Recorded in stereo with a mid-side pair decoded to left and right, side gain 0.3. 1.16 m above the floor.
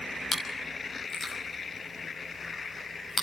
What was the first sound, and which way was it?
Chewing, 55° left.